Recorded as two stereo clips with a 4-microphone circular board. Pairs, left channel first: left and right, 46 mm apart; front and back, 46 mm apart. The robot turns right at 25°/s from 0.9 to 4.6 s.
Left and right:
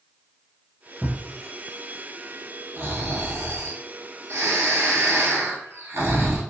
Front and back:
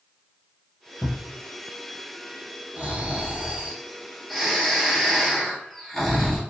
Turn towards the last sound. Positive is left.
turn(degrees=-85)